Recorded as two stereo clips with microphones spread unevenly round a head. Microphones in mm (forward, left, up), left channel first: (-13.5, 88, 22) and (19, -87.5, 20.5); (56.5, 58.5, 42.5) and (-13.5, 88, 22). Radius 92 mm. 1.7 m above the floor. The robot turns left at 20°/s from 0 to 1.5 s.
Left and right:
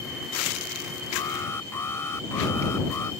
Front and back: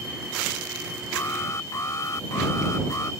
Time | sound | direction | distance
1.1 | an alarm | 30° left | ?